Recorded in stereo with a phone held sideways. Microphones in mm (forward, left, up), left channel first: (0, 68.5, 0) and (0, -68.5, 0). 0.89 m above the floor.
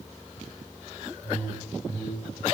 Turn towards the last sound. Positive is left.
turn(degrees=50)  # may be behind; listen again after turning